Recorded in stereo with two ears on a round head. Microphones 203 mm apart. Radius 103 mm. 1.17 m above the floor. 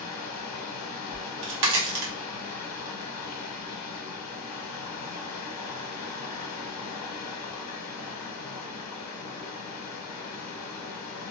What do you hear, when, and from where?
0.0 s running water: 80° left, 0.8 m
1.1 s a crack: 50° right (ahead or behind), 1.0 m